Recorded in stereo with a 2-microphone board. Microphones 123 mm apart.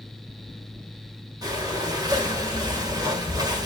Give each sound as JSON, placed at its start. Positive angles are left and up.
{"t": 1.4, "sound": "breathing", "side_deg": -30, "distance_m": 3.5}